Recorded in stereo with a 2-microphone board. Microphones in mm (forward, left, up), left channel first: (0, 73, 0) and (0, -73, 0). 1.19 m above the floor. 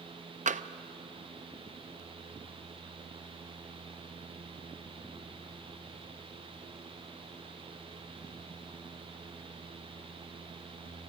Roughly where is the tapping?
Right.